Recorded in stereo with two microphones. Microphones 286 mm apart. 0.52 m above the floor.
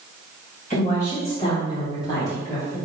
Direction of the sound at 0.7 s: 30° left (ahead or behind).